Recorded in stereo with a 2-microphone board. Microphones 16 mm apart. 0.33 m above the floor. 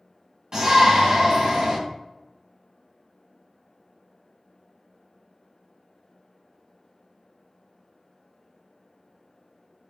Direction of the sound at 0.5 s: 40° right (ahead or behind).